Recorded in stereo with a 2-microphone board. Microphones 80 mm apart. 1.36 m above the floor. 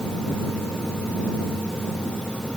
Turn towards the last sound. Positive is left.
No sound to turn to.